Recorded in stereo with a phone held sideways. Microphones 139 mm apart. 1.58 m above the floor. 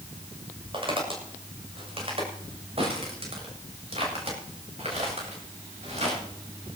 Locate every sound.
0.7 s footsteps: 40° right (ahead or behind), 7 m; by 6.2 s 50° right (ahead or behind), 9.5 m